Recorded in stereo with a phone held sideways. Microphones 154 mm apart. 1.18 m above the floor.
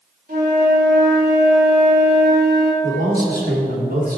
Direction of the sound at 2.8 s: 85° right.